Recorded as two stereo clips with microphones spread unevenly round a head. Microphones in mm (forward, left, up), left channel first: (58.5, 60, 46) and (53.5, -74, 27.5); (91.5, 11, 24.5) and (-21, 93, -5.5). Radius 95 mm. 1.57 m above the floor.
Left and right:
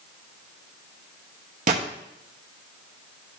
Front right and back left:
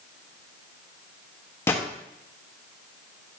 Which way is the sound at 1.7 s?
90° right.